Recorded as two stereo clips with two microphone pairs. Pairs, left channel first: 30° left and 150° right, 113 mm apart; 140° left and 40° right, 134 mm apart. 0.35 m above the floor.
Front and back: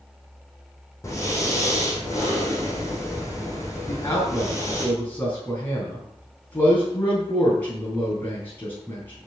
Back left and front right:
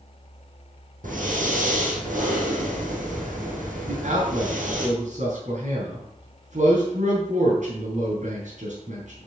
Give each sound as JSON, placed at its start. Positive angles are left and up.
{"t": 1.0, "sound": "breathing", "azimuth_deg": -35, "distance_m": 4.5}
{"t": 3.9, "sound": "a man speaking", "azimuth_deg": -40, "distance_m": 3.5}